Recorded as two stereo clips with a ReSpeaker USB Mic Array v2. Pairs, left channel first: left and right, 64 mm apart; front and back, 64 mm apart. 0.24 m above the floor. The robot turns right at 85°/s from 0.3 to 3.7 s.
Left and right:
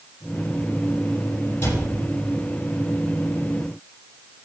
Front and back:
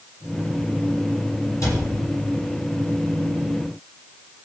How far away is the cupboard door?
About 7.5 m.